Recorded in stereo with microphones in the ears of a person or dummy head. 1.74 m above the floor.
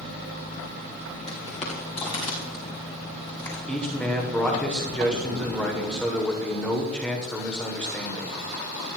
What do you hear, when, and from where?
1.3 s footsteps: 35° left (ahead or behind), 2.5 m; by 3.6 s 20° left (ahead or behind), 4.5 m
3.7 s a man speaking: 5° left (ahead or behind), 0.9 m